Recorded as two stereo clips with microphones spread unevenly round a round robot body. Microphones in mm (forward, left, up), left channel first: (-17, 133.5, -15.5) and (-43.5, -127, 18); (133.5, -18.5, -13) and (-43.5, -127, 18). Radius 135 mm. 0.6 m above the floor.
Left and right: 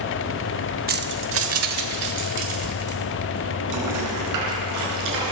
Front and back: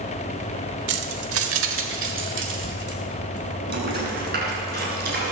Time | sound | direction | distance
0.9 | keys jangling | 155° right | 1.1 m